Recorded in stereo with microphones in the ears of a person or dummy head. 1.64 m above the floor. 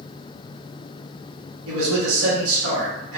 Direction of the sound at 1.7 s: 80° right.